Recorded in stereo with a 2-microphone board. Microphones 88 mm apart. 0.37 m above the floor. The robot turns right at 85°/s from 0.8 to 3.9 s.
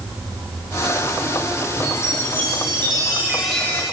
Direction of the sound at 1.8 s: 140° right.